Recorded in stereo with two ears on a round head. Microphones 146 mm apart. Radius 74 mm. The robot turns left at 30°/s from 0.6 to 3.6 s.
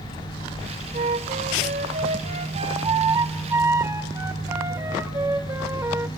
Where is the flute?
75° right, 0.8 m; by 6.1 s 155° right, 0.8 m.